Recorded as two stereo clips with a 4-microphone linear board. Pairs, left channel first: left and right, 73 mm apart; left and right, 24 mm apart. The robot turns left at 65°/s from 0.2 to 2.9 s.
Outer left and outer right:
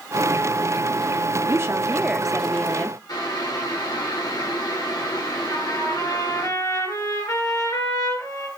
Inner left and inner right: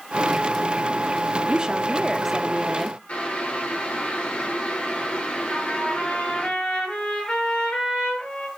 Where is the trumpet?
55° left (ahead or behind), 5 m.